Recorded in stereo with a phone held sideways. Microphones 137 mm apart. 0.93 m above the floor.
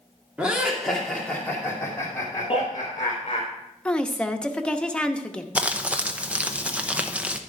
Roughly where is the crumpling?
Centre.